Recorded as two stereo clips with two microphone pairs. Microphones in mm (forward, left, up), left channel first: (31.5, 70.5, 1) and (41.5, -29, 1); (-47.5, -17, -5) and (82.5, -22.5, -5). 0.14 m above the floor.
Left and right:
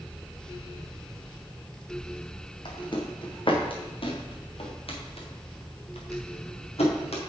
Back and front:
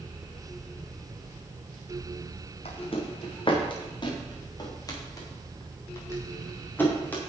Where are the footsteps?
135° left, 3 m; by 7.3 s 100° left, 4 m.